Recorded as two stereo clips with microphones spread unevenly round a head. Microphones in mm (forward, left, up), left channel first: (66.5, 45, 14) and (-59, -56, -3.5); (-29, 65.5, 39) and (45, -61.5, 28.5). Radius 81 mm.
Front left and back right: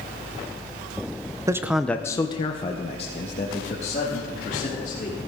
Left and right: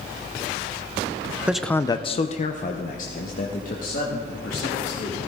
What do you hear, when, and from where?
1.5 s a man speaking: 120° right, 0.6 m; by 5.2 s 90° left, 3.5 m